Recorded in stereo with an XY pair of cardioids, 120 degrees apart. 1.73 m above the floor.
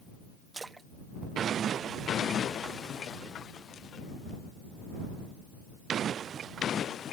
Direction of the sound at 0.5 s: 20° right.